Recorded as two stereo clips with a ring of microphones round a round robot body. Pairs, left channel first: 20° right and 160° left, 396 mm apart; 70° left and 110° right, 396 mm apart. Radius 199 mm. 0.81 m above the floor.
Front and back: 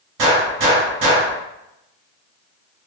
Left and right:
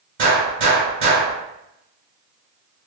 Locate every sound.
0.2 s a gunshot: 170° right, 1.4 m